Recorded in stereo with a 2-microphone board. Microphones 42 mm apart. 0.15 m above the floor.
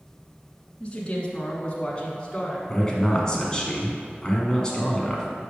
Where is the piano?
I don't hear a piano.